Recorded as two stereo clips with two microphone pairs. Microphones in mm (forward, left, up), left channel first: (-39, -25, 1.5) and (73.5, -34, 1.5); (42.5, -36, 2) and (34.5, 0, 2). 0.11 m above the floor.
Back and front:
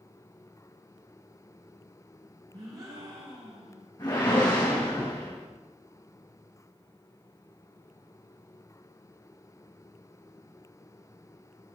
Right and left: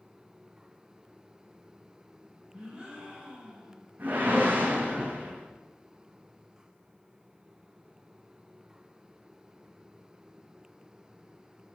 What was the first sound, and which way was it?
A gasp, 40° left.